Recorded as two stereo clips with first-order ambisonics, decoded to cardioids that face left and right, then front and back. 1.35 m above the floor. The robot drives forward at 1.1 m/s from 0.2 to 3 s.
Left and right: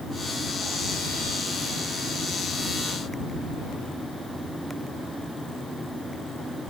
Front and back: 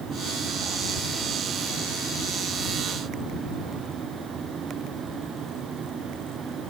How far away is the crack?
I don't hear a crack.